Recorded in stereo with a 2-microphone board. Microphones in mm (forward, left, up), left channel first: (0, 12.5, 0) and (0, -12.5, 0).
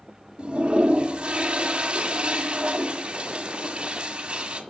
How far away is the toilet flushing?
About 1.6 m.